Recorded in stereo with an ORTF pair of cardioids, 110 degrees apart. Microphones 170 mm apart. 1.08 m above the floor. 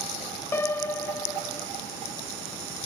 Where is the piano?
15° left, 0.8 m.